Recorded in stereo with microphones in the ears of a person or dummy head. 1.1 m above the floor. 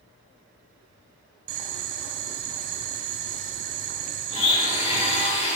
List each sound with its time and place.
1.5 s boiling: 45° right (ahead or behind), 1.6 m
4.3 s a blender: 35° left (ahead or behind), 2 m